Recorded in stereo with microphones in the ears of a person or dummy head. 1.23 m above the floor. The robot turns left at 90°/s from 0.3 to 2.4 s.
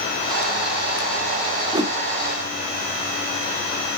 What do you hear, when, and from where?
1.7 s a whoosh: 20° right (ahead or behind), 0.7 m; by 2.0 s centre (ahead or behind), 0.7 m